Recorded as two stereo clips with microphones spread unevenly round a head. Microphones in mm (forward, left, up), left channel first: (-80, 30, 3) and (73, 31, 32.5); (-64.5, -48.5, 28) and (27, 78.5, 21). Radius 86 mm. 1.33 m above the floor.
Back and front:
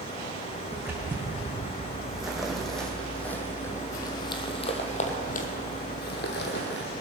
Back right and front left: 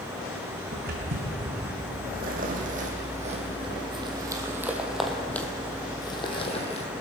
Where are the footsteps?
75° left, 4 m; by 6.9 s 165° right, 2 m.